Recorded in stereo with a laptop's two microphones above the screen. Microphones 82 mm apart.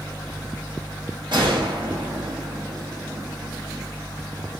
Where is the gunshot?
65° right (ahead or behind), 0.7 m.